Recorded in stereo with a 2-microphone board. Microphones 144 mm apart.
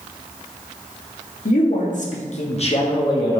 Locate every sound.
1.4 s a man speaking: 70° left (ahead or behind), 1.5 m; by 3.4 s 25° left (ahead or behind), 1.2 m